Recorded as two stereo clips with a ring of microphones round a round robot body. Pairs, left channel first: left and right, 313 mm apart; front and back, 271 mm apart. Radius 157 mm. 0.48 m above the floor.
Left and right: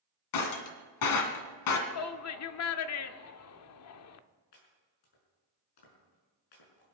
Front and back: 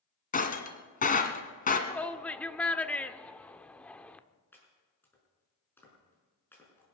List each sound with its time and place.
0.3 s breaking glass: 60° left, 1.8 m
1.9 s a shout: 85° left, 1.0 m
4.5 s chopping: 80° left, 6 m